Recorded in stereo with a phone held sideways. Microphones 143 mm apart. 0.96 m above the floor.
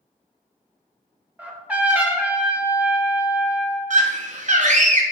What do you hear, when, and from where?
1.4 s a trumpet: 10° right (ahead or behind), 0.6 m
3.9 s a scream: 60° right (ahead or behind), 0.6 m